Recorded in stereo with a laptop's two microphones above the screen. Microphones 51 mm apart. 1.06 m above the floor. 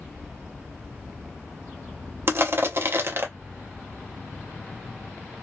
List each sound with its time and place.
2.3 s crushing: 50° right (ahead or behind), 0.6 m